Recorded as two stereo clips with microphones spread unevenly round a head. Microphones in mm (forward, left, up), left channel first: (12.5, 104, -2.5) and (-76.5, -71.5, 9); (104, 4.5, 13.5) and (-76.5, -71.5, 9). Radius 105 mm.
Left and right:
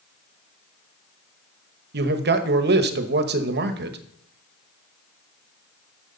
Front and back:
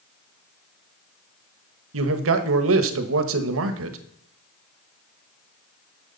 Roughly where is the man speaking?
Behind right.